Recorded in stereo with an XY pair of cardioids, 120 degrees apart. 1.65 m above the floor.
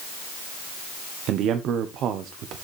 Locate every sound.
1.3 s a man speaking: 70° right, 1.0 m